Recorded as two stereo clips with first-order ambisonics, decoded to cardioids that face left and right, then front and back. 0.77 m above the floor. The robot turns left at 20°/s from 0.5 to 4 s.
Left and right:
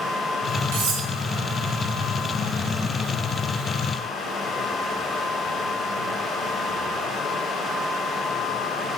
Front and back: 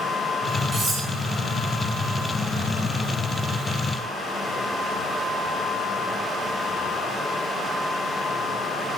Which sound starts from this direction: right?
Cutlery clinking, at 0.7 s.